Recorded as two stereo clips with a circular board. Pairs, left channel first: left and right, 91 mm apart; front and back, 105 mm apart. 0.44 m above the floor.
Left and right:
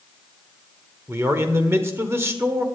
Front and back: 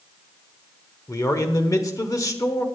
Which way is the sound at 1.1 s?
40° right.